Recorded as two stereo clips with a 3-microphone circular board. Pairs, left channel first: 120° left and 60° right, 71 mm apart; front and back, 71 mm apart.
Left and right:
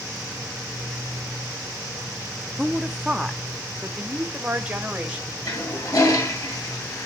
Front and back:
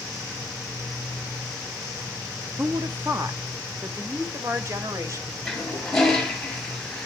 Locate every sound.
2.6 s a woman speaking: 155° right, 1.0 m; by 5.3 s 130° right, 2 m
5.5 s a toilet flushing: 85° left, 3.5 m